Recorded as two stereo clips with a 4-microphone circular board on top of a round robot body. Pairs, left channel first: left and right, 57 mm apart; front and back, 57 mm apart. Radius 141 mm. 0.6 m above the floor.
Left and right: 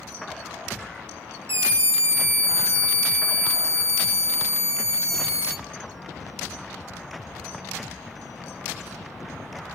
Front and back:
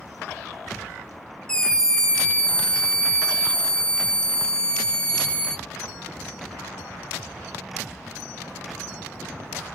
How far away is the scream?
About 2 m.